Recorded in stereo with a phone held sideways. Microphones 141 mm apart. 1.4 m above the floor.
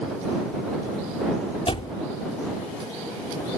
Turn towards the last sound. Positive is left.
turn(degrees=45)  # may be behind; listen again after turning